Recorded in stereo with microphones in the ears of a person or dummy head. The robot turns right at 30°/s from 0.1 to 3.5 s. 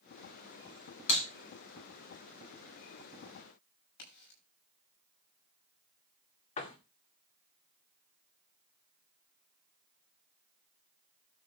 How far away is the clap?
About 5 m.